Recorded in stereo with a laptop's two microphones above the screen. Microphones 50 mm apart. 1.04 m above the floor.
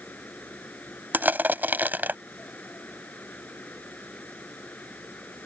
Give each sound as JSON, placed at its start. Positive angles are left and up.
{"t": 0.0, "sound": "a fan", "side_deg": 30}
{"t": 1.1, "sound": "crushing", "side_deg": -40}